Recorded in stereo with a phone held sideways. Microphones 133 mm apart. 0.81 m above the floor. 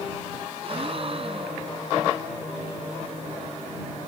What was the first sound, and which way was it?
A gasp, 45° right (ahead or behind).